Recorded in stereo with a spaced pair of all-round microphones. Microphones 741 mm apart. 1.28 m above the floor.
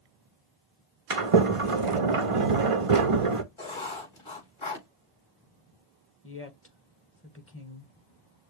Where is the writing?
40° left (ahead or behind), 4 m.